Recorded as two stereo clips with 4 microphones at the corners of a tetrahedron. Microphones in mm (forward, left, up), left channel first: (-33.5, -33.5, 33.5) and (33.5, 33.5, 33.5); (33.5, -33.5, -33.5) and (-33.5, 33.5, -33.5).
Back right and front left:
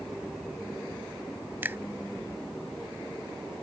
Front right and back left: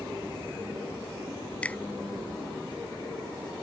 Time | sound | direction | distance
1.6 | a finger snap | 10° left | ?